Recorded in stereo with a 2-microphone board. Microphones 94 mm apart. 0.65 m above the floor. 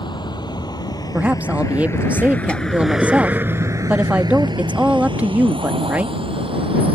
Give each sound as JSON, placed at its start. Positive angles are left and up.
{"t": 0.0, "sound": "a vehicle", "side_deg": 55}
{"t": 1.1, "sound": "a woman speaking", "side_deg": -15}